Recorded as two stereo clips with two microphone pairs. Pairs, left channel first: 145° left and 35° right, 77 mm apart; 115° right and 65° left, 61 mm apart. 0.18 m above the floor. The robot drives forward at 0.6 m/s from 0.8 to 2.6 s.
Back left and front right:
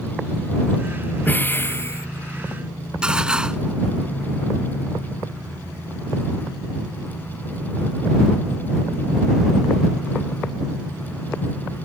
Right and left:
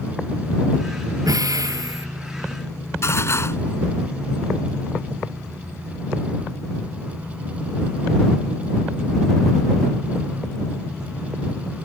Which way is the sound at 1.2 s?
75° left.